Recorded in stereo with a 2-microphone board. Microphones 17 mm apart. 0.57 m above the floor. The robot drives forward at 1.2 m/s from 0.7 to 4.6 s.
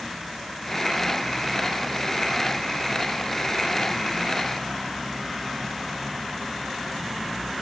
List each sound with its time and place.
Only background noise.